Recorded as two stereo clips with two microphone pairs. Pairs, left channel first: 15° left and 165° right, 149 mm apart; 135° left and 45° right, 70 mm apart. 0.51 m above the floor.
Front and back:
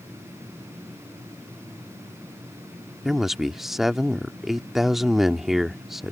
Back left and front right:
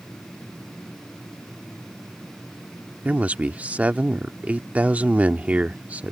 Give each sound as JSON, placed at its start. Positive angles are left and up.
{"t": 3.0, "sound": "a man speaking", "azimuth_deg": -80}